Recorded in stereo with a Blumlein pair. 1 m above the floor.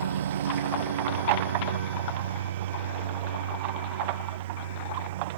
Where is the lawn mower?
65° right; by 5.4 s 60° right.